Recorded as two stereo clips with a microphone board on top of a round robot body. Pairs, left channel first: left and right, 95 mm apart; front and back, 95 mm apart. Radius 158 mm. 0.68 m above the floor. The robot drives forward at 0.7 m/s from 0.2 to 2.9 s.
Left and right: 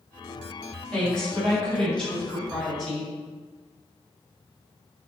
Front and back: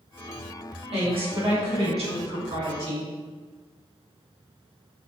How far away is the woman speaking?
About 3.5 m.